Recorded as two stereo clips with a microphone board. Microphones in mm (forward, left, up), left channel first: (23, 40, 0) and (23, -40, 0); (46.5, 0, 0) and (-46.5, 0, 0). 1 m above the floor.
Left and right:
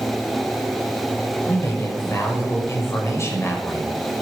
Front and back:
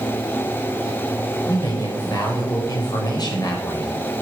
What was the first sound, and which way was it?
A man speaking, 40° left.